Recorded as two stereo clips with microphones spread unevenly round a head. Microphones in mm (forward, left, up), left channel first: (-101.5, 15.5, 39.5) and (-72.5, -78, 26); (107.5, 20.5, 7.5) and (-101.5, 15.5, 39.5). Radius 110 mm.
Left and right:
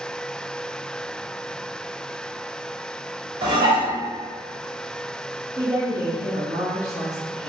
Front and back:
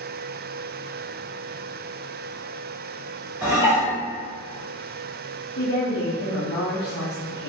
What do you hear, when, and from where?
3.4 s dishes clattering: 100° right, 1.0 m
5.6 s a woman speaking: 5° right, 0.6 m